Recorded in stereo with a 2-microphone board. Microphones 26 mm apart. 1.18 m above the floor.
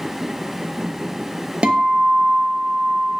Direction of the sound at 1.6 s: 55° right (ahead or behind).